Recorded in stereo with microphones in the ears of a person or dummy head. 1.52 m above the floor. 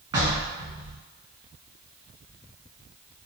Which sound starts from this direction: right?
Knocking, at 0.1 s.